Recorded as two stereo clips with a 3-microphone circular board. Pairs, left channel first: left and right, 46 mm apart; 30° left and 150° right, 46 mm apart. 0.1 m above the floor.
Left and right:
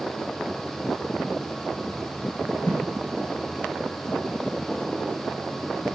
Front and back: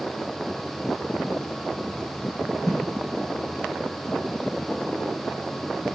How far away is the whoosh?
About 1.2 m.